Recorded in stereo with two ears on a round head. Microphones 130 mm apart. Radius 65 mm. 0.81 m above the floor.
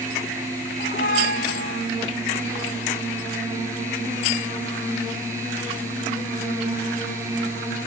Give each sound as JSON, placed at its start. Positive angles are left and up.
{"t": 0.8, "sound": "a squeak", "side_deg": 70}